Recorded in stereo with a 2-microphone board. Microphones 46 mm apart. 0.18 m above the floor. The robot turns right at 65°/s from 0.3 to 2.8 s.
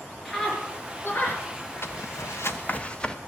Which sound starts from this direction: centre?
A scream, at 0.2 s.